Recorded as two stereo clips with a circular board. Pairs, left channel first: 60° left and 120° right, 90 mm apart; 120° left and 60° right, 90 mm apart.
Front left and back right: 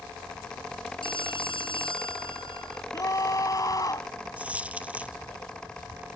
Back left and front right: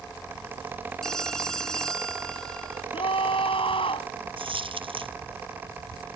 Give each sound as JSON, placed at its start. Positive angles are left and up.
{"t": 1.0, "sound": "a phone ringing", "azimuth_deg": 35}
{"t": 2.9, "sound": "a scream", "azimuth_deg": 110}
{"t": 4.4, "sound": "a dropped coin", "azimuth_deg": -45}